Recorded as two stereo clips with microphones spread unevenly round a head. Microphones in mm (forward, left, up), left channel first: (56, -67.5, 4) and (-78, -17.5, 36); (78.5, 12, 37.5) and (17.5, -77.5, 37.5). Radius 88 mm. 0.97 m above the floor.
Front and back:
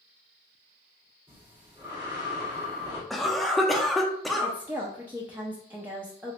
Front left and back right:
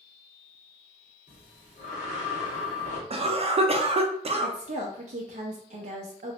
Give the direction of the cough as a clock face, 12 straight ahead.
3 o'clock.